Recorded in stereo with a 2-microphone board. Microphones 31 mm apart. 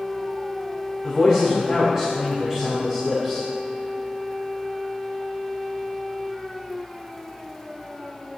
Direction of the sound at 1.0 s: 20° right (ahead or behind).